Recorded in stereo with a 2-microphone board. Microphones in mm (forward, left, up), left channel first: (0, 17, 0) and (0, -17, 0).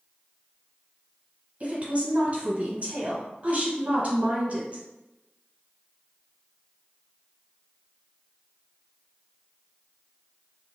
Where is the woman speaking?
35° right (ahead or behind), 1.4 m.